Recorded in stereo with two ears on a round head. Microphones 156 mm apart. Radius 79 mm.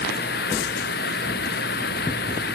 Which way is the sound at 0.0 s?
60° left (ahead or behind).